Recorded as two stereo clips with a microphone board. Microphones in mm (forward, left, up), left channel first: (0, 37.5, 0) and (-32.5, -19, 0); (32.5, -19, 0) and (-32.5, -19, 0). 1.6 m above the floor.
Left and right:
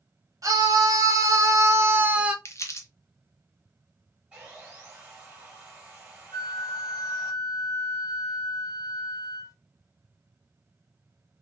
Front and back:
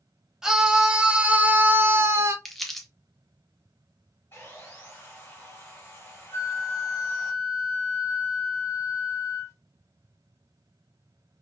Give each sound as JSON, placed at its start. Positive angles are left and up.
{"t": 0.4, "sound": "a scream", "azimuth_deg": -100, "distance_m": 1.1}
{"t": 2.5, "sound": "crumpling", "azimuth_deg": 85, "distance_m": 0.7}
{"t": 4.3, "sound": "sawing", "azimuth_deg": -55, "distance_m": 1.7}
{"t": 6.3, "sound": "a flute", "azimuth_deg": 45, "distance_m": 1.1}